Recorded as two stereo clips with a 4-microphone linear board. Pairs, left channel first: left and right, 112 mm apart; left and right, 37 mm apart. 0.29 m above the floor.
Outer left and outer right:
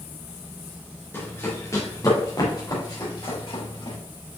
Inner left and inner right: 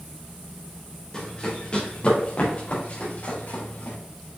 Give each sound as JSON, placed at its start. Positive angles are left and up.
{"t": 1.1, "sound": "running footsteps", "side_deg": 20, "distance_m": 3.0}